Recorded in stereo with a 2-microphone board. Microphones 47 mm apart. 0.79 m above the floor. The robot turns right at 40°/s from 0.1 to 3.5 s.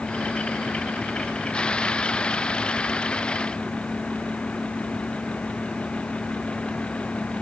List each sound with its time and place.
Only background noise.